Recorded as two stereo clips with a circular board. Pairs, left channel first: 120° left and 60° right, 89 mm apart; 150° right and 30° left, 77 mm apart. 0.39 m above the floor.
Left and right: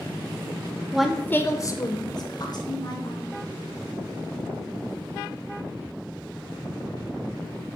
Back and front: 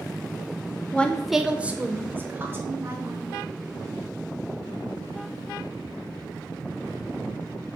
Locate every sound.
0.9 s a woman speaking: 125° right, 0.8 m; by 3.2 s 90° left, 3 m